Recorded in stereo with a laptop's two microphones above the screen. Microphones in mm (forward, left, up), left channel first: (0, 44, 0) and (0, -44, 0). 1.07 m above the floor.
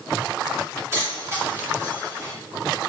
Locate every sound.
0.9 s keys jangling: 30° right (ahead or behind), 1.7 m